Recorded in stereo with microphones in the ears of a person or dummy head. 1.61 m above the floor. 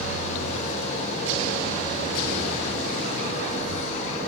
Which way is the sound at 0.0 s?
35° left (ahead or behind).